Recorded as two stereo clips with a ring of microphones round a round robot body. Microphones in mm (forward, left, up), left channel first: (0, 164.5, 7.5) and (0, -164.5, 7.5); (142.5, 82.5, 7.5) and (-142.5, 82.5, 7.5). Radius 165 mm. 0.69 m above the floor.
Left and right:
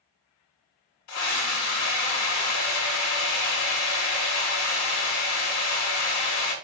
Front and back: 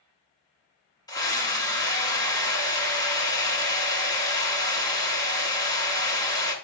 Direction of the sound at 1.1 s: 75° left.